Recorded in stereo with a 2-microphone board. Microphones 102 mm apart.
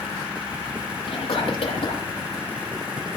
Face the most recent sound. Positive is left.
turn(degrees=80)